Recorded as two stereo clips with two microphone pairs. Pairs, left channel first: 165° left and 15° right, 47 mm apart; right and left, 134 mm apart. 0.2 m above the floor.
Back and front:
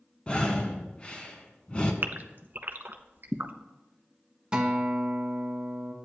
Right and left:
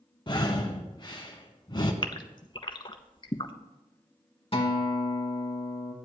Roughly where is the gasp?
Ahead right.